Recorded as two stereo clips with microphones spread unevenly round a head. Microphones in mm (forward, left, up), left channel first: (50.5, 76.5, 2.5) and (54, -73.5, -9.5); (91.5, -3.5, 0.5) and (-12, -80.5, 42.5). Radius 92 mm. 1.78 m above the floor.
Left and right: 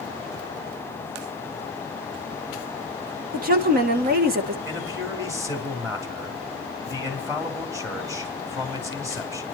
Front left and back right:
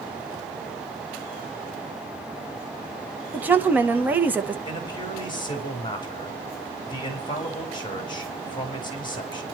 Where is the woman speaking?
75° right, 1.6 m.